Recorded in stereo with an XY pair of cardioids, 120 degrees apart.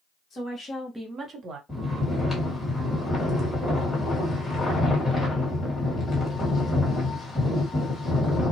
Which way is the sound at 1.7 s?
15° left.